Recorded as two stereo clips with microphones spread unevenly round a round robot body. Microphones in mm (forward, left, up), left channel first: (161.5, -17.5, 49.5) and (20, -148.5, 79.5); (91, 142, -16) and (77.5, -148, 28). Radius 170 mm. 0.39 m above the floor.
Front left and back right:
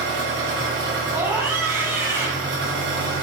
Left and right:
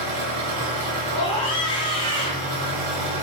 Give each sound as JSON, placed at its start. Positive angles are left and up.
{"t": 0.0, "sound": "an engine running", "azimuth_deg": -115, "distance_m": 1.8}
{"t": 1.1, "sound": "a scream", "azimuth_deg": 140, "distance_m": 1.1}